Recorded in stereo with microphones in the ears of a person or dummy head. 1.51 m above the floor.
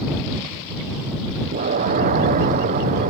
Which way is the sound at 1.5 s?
40° right (ahead or behind).